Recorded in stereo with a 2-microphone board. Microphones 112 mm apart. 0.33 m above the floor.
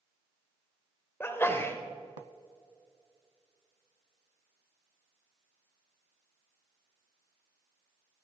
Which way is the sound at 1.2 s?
20° left (ahead or behind).